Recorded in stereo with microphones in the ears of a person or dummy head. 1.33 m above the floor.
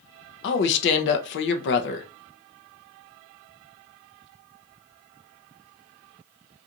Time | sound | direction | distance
0.4 | a woman speaking | 60° left (ahead or behind) | 0.6 m